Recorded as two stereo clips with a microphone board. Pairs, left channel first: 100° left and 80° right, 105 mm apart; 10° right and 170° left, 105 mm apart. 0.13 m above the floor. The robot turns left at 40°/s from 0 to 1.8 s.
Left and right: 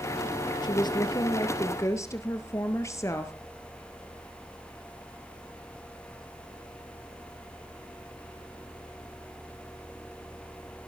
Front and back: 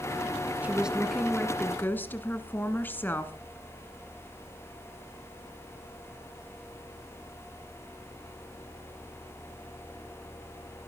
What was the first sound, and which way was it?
A woman speaking, 100° left.